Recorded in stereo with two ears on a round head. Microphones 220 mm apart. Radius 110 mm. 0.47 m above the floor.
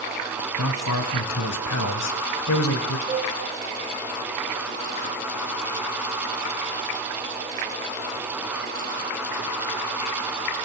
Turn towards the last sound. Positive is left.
turn(degrees=-20)  # may be behind; listen again after turning